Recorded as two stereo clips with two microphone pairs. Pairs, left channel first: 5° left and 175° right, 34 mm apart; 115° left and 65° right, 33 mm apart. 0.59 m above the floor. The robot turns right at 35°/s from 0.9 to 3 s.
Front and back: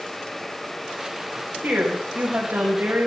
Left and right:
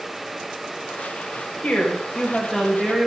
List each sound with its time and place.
1.6 s a woman speaking: 170° left, 3 m; by 3.1 s 140° right, 3 m